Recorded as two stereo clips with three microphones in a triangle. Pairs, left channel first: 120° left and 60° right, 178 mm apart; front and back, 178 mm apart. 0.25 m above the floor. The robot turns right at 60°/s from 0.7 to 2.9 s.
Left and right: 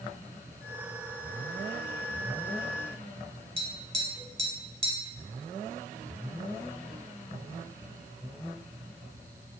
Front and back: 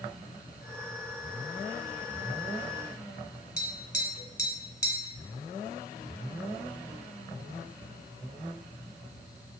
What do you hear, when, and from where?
3.6 s tapping: 5° right, 1.5 m